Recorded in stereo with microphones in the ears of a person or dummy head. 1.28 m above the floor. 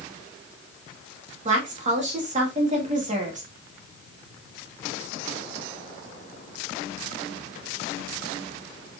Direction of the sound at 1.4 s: 40° right (ahead or behind).